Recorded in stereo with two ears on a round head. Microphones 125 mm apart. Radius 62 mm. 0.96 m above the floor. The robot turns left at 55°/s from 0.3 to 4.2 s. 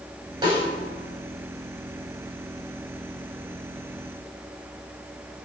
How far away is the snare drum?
About 6 m.